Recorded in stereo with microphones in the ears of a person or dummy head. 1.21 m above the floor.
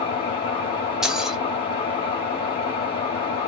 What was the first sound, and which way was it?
An engine running, 30° left (ahead or behind).